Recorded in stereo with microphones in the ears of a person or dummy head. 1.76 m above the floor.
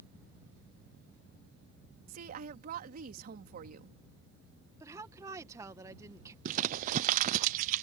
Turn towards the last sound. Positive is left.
turn(degrees=-50)  # may be behind; listen again after turning